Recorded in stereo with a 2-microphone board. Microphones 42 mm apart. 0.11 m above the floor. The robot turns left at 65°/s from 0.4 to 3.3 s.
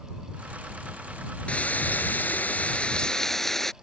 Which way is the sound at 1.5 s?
130° left.